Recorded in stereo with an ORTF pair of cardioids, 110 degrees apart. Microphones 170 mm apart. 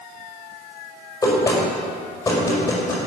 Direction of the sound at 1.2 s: 15° left.